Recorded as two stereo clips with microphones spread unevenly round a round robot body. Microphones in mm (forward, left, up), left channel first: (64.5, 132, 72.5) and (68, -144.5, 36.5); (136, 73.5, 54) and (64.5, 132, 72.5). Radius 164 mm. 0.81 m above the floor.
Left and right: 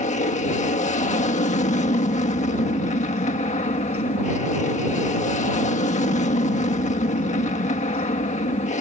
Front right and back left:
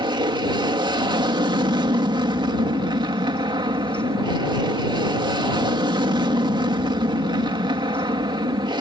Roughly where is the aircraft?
Behind left.